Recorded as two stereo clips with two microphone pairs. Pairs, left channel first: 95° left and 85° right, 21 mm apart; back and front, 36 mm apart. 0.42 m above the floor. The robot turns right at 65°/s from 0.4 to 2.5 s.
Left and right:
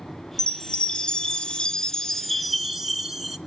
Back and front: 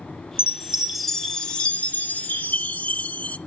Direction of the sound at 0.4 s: 55° left.